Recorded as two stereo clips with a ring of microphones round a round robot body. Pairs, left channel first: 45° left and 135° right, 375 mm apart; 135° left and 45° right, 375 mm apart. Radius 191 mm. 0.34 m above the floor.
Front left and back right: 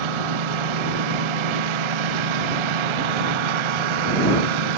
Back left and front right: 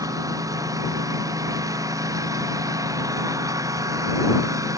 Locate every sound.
0.0 s a lawn mower: 125° right